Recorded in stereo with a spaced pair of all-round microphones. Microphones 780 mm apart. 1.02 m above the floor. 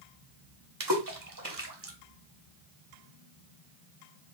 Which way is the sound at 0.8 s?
25° right (ahead or behind).